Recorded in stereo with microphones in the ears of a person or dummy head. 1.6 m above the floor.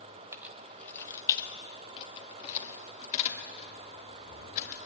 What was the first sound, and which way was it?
Keys jangling, 10° right (ahead or behind).